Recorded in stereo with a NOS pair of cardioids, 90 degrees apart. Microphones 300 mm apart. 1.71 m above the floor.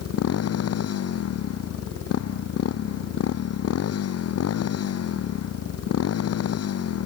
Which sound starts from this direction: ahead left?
A motorcycle, at 0.0 s.